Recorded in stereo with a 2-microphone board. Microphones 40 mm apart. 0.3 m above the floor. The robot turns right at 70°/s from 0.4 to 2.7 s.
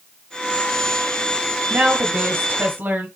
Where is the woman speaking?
140° right, 1.7 m; by 3.1 s 70° right, 1.7 m.